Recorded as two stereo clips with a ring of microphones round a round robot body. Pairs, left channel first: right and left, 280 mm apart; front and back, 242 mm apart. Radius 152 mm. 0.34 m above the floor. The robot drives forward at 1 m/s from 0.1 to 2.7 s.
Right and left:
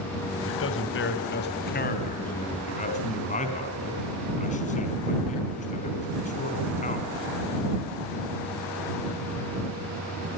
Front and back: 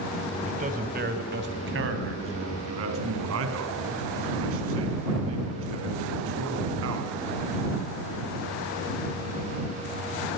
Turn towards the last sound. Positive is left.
turn(degrees=-155)